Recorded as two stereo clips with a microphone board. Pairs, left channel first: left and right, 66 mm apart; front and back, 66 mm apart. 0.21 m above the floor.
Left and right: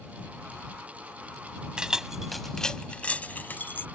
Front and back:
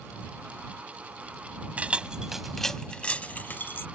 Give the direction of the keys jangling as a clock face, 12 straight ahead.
5 o'clock.